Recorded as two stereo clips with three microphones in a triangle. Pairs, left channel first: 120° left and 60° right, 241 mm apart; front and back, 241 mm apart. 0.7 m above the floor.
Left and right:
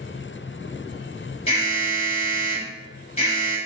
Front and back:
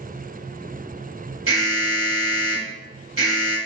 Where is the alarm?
Straight behind, 1.2 m.